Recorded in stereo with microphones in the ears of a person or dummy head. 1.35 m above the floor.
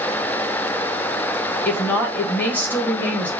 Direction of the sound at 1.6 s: 10° left (ahead or behind).